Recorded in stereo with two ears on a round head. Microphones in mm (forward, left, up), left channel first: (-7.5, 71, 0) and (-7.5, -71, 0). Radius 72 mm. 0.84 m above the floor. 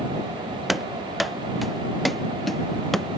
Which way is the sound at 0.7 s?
Centre (ahead or behind).